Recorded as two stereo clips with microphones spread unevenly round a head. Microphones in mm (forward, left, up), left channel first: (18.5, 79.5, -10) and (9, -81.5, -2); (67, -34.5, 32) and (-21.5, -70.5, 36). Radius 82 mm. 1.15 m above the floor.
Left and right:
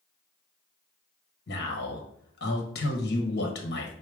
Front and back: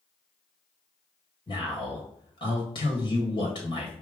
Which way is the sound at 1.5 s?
70° left.